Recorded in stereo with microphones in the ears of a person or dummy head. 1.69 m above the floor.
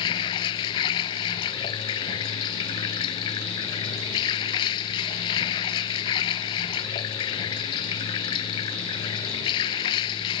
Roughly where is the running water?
Left.